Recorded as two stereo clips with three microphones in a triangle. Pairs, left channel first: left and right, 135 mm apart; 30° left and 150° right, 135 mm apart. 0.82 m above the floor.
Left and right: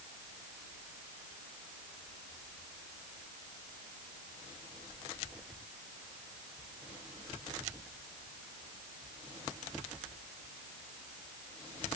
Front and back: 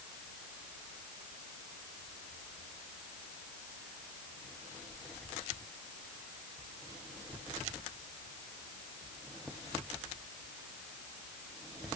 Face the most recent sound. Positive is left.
No sound to turn to.